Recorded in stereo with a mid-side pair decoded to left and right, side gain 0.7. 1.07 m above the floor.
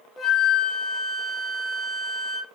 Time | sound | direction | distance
0.2 | a flute | 10° left | 1.4 m